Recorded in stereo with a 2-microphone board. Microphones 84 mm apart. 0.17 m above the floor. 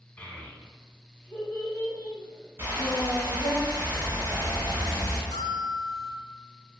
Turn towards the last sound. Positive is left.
turn(degrees=5)  # may be behind; listen again after turning